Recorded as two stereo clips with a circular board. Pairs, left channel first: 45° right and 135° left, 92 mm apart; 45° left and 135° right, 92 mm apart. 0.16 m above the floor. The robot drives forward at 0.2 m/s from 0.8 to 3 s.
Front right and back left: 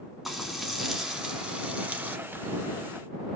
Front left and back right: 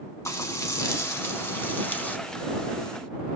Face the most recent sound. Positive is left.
turn(degrees=120)